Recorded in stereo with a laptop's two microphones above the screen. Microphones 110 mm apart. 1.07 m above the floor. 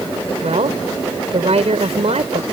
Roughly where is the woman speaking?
Right.